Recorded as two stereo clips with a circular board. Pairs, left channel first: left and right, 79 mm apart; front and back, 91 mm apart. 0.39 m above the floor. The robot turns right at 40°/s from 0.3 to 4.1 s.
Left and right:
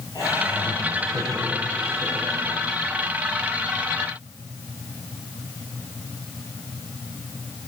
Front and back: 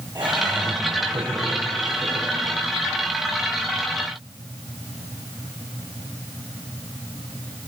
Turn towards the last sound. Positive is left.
turn(degrees=-90)